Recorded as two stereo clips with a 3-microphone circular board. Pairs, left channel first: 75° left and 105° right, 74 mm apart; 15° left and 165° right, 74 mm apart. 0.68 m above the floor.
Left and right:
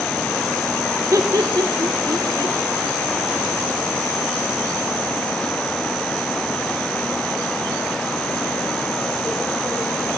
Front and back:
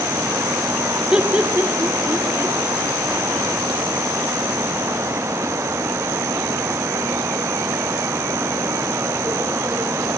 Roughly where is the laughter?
Right.